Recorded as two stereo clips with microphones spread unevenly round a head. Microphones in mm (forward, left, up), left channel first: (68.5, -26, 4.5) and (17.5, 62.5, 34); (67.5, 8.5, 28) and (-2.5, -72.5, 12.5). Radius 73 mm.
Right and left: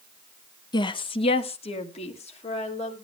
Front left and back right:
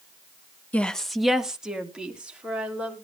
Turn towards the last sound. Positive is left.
turn(degrees=-55)